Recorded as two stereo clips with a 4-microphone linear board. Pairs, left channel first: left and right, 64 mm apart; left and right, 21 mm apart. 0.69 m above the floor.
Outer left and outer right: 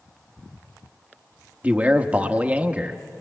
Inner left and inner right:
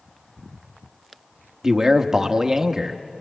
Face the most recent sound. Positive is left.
turn(degrees=-25)  # may be behind; listen again after turning